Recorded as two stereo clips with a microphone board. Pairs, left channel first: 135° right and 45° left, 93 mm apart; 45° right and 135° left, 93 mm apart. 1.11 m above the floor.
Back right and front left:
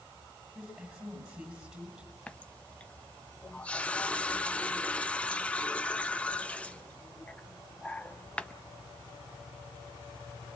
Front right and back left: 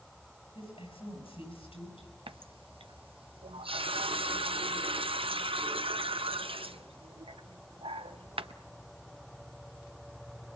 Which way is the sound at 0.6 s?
35° right.